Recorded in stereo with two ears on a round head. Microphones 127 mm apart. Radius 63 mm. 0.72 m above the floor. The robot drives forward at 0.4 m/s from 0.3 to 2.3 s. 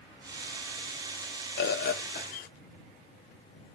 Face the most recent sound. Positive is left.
turn(degrees=65)  # may be behind; listen again after turning